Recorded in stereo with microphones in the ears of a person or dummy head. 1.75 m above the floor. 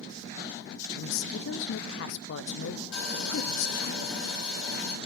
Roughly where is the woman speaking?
Left.